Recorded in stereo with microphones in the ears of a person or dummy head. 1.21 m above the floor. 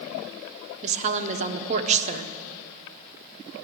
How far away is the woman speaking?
About 0.6 m.